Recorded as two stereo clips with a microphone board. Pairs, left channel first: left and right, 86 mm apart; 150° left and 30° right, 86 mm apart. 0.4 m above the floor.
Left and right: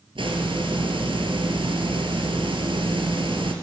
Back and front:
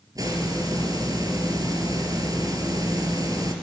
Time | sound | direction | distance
0.1 | a hiss | 75° right | 4 m